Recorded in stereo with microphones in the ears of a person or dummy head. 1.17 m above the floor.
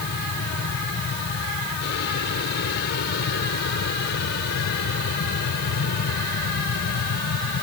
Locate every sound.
0.0 s an aircraft: 55° left (ahead or behind)